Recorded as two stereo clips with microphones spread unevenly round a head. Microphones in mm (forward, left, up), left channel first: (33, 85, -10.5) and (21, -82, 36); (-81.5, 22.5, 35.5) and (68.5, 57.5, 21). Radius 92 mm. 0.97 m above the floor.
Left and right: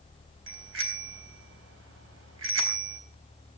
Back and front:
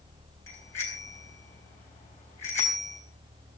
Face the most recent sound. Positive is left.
turn(degrees=-90)